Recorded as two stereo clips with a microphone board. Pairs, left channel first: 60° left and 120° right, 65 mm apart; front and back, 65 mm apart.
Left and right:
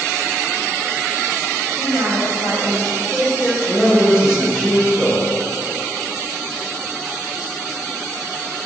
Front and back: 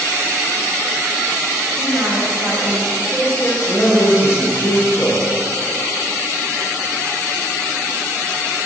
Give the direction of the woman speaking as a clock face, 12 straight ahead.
4 o'clock.